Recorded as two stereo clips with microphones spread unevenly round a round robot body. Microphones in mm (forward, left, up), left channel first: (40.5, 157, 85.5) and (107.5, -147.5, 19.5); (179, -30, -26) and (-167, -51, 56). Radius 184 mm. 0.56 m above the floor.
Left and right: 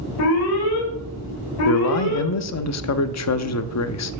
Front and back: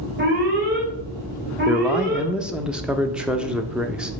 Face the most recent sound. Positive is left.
turn(degrees=80)